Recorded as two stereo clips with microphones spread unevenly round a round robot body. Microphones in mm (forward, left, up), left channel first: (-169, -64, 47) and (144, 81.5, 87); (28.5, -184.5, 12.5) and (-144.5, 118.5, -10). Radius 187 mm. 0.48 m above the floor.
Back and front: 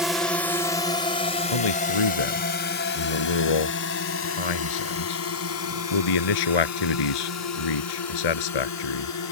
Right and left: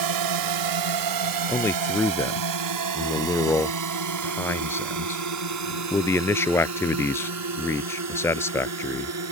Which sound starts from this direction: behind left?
A drone, at 0.0 s.